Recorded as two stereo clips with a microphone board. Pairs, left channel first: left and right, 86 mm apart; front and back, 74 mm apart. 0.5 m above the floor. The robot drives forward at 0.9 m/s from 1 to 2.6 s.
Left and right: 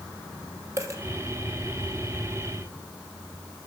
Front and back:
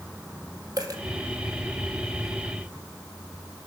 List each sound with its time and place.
0.8 s a dropped coin: 145° right, 2 m